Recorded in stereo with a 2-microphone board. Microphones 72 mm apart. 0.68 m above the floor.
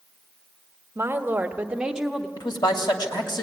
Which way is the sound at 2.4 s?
75° left (ahead or behind).